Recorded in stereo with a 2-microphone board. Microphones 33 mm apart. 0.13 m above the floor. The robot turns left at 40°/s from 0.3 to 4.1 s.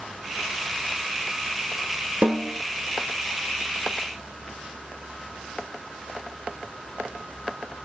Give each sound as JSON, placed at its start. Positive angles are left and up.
{"t": 2.2, "sound": "a snare drum", "side_deg": -50, "distance_m": 1.4}